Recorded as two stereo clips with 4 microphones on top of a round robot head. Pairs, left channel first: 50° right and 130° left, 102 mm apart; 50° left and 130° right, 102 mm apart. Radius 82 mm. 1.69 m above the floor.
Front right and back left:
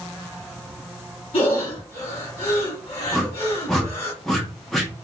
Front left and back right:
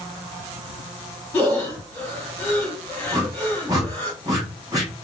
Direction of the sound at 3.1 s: 130° right.